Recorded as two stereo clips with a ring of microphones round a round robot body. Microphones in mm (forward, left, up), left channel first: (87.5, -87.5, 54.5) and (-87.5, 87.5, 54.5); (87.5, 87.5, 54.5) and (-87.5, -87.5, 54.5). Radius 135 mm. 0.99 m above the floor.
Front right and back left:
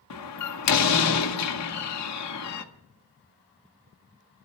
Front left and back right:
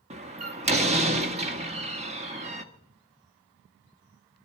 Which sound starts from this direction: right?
A door slam, at 0.1 s.